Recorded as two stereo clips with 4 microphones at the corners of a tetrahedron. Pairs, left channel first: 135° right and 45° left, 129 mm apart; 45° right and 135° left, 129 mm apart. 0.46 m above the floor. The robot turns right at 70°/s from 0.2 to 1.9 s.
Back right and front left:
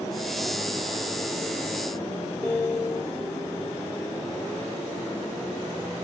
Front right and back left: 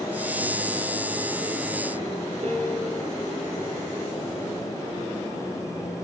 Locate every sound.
2.4 s a piano: 155° left, 1.2 m